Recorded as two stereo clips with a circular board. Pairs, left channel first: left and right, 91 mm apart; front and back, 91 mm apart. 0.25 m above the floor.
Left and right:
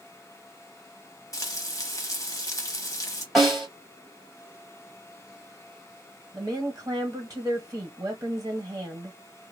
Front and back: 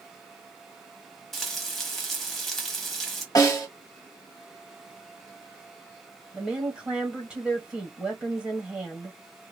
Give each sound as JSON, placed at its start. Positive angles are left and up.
{"t": 1.3, "sound": "frying", "azimuth_deg": 90, "distance_m": 0.9}
{"t": 3.4, "sound": "a snare drum", "azimuth_deg": 5, "distance_m": 1.8}
{"t": 6.3, "sound": "a woman speaking", "azimuth_deg": -100, "distance_m": 1.1}